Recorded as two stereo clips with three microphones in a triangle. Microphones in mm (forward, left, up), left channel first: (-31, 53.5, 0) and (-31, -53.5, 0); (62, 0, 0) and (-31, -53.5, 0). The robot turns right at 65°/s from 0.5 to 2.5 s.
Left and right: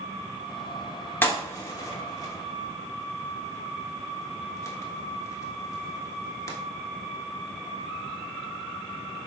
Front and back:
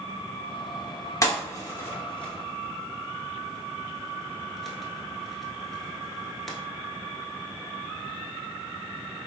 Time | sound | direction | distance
1.2 | a pop | 35° left | 0.8 m